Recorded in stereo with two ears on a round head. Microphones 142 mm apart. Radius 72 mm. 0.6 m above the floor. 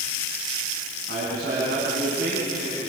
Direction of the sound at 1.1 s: 70° right (ahead or behind).